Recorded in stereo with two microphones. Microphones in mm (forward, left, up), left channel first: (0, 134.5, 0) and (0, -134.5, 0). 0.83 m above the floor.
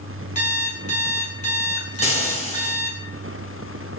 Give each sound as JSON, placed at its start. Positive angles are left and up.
{"t": 0.3, "sound": "an alarm clock", "side_deg": 30, "distance_m": 6.0}
{"t": 2.0, "sound": "frying", "side_deg": 25, "distance_m": 4.0}